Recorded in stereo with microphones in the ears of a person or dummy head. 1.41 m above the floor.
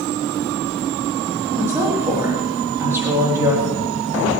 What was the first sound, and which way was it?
A woman speaking, 15° right (ahead or behind).